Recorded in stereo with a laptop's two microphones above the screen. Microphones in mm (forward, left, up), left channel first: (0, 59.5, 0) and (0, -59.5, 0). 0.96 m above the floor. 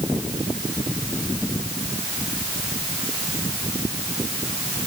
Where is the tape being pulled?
I don't hear tape being pulled.